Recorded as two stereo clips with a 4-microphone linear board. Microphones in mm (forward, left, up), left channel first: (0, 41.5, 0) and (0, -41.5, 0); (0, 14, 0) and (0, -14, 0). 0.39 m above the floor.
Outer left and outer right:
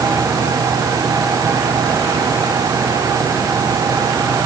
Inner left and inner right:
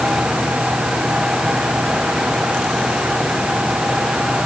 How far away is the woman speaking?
I don't hear a woman speaking.